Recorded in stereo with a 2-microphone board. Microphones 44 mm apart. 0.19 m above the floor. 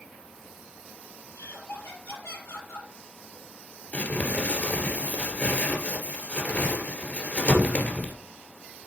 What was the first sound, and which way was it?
Laughter, 65° left (ahead or behind).